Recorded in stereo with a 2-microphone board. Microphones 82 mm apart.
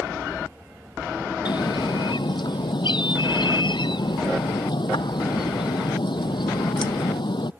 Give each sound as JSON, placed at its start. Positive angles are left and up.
{"t": 1.4, "sound": "a bird", "side_deg": 70}